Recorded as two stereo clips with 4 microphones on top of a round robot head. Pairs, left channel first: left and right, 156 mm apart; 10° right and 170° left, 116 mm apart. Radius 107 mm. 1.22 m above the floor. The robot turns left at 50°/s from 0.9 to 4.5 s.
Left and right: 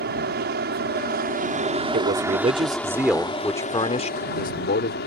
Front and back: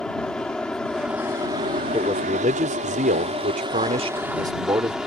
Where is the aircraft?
95° right; by 5.1 s 85° left.